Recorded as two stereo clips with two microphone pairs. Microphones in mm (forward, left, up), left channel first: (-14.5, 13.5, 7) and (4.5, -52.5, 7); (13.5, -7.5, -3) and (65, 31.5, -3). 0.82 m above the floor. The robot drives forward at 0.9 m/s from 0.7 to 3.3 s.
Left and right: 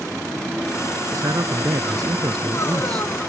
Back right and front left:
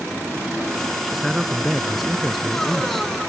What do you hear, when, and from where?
1.0 s a man speaking: 50° right; by 3.1 s 55° right